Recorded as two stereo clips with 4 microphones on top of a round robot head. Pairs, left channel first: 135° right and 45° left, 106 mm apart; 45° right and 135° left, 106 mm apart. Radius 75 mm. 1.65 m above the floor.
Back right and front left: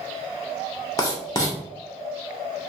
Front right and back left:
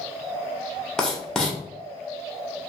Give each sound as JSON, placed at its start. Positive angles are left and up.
{"t": 1.0, "sound": "writing", "azimuth_deg": -125, "distance_m": 0.6}